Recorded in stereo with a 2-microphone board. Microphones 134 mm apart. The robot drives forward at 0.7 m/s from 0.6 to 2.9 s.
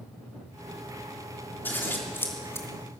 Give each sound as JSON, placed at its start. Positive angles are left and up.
{"t": 1.6, "sound": "scissors", "side_deg": 15, "distance_m": 3.5}